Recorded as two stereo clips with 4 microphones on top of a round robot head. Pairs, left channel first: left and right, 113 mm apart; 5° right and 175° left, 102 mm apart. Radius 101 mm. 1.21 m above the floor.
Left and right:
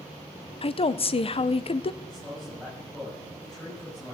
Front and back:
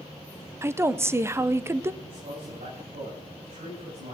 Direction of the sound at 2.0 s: 175° left.